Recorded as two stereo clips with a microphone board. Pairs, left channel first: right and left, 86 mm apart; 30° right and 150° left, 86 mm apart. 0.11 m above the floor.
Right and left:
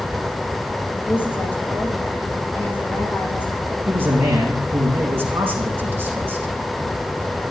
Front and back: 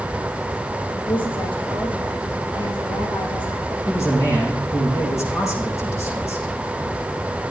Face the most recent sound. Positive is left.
turn(degrees=25)